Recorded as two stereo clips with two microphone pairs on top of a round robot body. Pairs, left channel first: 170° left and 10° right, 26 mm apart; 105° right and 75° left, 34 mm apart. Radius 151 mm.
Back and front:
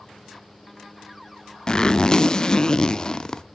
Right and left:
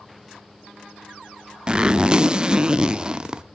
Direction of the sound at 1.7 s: 125° left.